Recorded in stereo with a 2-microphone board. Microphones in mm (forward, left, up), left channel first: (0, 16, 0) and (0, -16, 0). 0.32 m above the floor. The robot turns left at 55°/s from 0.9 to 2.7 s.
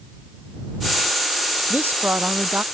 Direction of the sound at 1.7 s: 75° right.